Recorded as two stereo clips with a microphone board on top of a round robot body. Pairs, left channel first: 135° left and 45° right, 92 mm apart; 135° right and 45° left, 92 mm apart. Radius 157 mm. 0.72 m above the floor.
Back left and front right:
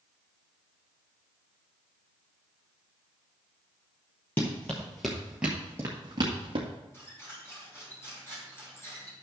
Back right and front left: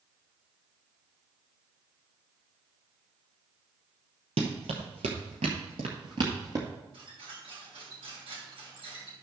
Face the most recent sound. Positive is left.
turn(degrees=70)